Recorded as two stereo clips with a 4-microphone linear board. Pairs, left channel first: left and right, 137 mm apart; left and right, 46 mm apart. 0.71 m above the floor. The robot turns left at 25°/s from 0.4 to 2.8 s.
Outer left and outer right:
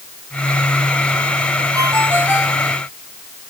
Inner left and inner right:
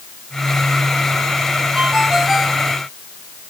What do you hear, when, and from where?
1.8 s a ringtone: 25° right (ahead or behind); by 2.6 s 5° right (ahead or behind)